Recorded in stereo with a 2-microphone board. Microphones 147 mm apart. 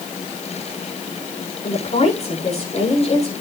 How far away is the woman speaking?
About 9.5 m.